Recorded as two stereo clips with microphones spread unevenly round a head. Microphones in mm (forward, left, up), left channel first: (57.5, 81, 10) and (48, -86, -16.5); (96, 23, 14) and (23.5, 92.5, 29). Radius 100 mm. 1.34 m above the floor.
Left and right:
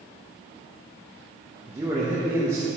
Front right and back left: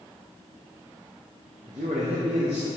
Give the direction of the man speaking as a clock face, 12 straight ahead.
6 o'clock.